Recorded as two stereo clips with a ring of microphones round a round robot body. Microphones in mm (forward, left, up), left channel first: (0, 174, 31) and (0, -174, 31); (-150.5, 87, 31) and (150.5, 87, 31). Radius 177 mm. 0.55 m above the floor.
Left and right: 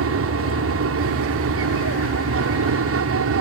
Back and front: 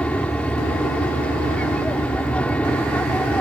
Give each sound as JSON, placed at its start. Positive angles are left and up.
{"t": 0.0, "sound": "an aircraft", "azimuth_deg": -95}